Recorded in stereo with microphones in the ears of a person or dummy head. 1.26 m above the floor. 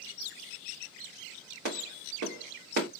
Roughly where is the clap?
Right.